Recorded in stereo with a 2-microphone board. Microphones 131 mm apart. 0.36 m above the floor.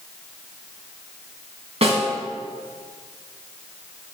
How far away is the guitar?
I don't hear a guitar.